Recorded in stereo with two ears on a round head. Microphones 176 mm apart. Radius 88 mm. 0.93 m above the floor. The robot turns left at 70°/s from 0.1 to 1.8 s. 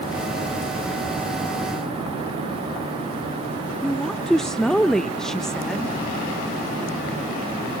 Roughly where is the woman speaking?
Centre.